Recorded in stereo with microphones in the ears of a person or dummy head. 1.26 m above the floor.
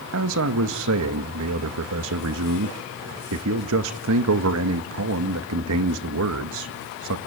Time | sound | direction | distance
0.1 | a man speaking | 75° right (ahead or behind) | 1.9 m